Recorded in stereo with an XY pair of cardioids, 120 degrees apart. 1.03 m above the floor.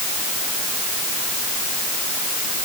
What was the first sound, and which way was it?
Only background noise.